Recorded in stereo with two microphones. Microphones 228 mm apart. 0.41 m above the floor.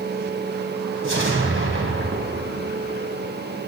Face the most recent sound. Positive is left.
turn(degrees=-60)  # may be behind; listen again after turning